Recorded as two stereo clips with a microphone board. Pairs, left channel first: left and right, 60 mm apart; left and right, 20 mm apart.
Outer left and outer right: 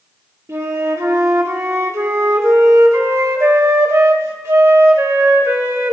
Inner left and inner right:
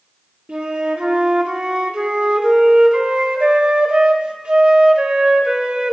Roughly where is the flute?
Right.